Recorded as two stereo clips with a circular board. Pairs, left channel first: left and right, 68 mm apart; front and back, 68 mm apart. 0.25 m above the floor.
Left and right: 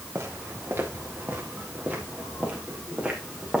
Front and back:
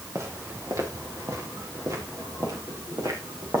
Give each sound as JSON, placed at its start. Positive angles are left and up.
{"t": 0.1, "sound": "footsteps", "azimuth_deg": -140, "distance_m": 3.5}